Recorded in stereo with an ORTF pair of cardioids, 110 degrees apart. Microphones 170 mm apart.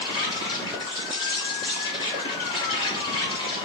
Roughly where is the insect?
Ahead left.